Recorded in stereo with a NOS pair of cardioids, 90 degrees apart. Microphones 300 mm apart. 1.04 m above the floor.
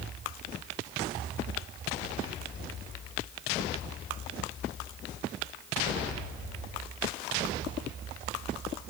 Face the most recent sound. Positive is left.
No sound to turn to.